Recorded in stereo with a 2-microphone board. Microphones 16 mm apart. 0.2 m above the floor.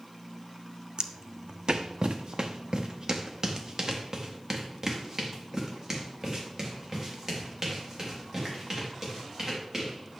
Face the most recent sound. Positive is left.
turn(degrees=-15)  # may be behind; listen again after turning